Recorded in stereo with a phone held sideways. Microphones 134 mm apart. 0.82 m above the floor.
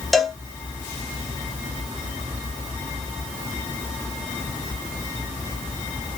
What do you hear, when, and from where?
0.1 s a cowbell: centre (ahead or behind), 0.7 m